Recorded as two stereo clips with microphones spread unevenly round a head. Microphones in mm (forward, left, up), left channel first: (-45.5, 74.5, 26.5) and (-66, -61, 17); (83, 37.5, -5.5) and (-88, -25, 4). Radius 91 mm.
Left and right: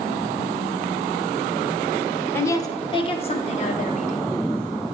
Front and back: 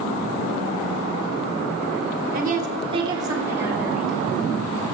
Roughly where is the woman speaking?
Behind left.